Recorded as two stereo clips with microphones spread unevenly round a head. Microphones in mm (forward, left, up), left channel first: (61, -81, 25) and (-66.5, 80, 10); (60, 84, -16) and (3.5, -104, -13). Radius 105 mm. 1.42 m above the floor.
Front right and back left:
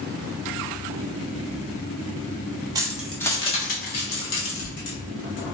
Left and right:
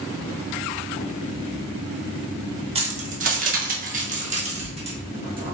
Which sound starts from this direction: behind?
Keys jangling, at 2.8 s.